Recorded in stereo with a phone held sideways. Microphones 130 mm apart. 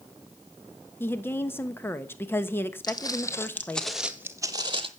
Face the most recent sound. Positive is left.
turn(degrees=-40)  # may be behind; listen again after turning